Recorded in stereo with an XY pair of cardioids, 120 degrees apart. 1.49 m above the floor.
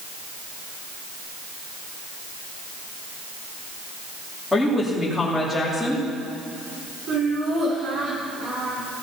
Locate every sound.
4.5 s a woman speaking: 5° left, 2.5 m
7.1 s laughter: 65° right, 5.5 m